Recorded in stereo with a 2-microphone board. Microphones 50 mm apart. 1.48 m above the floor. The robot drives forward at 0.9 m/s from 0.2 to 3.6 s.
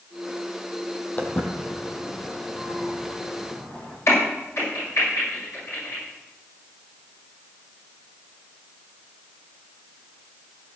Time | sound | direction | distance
1.2 | footsteps | 35° left (ahead or behind) | 1.8 m
4.1 | a crack | 70° left (ahead or behind) | 7 m